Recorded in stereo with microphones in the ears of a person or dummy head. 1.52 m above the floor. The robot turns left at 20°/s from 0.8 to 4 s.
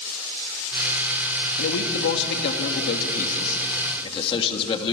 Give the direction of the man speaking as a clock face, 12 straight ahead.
9 o'clock.